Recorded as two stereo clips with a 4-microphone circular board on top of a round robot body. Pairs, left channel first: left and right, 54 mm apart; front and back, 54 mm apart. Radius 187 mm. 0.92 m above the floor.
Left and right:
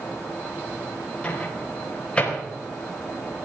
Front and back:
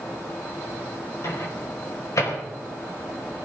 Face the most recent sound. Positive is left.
turn(degrees=20)